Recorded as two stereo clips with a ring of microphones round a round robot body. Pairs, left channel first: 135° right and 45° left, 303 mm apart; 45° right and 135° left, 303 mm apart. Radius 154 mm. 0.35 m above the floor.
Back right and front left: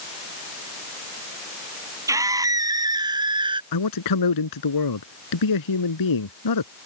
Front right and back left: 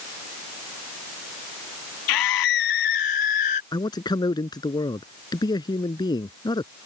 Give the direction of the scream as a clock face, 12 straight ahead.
1 o'clock.